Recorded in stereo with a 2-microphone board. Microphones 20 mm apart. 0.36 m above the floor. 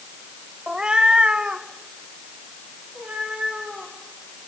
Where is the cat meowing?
35° right (ahead or behind), 0.5 m; by 3.9 s 80° right, 5 m.